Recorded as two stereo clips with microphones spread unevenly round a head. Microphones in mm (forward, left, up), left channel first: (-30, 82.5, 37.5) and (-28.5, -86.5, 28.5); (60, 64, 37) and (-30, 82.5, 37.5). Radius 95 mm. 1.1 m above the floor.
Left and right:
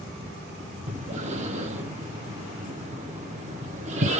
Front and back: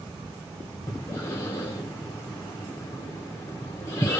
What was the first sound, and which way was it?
Breathing, 60° right.